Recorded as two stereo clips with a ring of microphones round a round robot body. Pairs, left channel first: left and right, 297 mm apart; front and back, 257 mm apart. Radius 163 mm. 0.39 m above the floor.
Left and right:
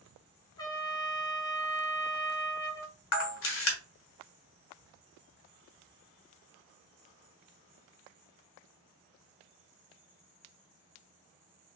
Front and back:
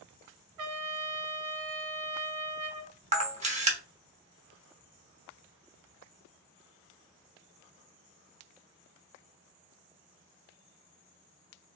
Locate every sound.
0.6 s a trumpet: 170° left, 0.8 m
3.1 s a camera shutter: 120° left, 1.2 m